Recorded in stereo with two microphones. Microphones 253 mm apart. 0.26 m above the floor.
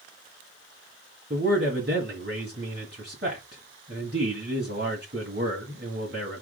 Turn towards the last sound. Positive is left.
turn(degrees=-45)  # may be behind; listen again after turning